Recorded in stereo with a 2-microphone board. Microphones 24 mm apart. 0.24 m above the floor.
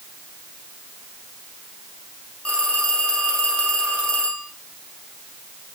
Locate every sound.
2.5 s a phone ringing: 55° left (ahead or behind), 5.5 m